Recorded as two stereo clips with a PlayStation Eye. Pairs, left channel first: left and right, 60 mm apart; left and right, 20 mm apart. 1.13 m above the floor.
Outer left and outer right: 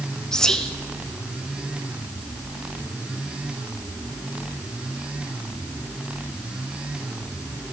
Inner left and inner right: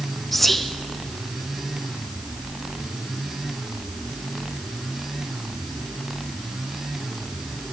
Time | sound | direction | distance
0.3 | whispering | 10° left (ahead or behind) | 0.6 m